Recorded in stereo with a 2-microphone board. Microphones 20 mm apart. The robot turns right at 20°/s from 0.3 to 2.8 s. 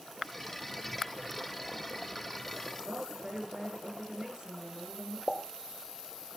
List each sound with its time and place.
2.9 s a woman speaking: 50° right (ahead or behind), 9 m
5.3 s a pop: 30° right (ahead or behind), 1.5 m